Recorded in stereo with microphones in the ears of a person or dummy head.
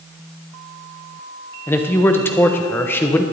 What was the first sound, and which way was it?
A man speaking, 10° left (ahead or behind).